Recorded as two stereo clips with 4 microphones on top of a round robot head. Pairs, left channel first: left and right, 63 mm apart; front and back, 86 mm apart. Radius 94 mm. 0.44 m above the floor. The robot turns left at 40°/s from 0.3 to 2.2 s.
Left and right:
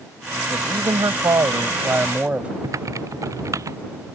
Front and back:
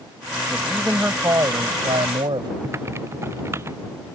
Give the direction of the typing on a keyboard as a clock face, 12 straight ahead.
4 o'clock.